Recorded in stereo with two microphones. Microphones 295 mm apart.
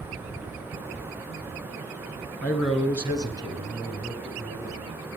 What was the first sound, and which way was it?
A man speaking, 5° left (ahead or behind).